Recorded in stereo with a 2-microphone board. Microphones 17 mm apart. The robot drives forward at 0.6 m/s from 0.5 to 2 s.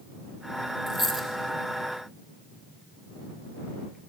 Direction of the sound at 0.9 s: 20° right (ahead or behind).